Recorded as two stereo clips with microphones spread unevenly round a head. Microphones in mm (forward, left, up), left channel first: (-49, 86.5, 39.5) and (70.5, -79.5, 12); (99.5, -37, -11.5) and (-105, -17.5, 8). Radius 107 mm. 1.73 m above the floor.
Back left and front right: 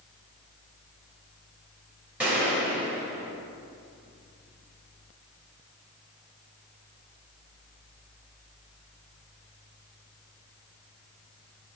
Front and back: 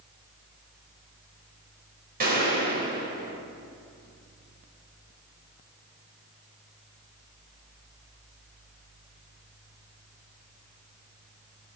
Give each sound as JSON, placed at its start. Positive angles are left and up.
{"t": 2.2, "sound": "a gunshot", "azimuth_deg": -140, "distance_m": 3.0}